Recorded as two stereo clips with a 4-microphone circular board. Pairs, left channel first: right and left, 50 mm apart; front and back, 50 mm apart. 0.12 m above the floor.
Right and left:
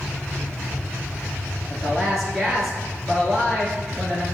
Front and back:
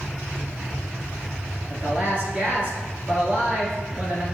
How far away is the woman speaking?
About 1.3 m.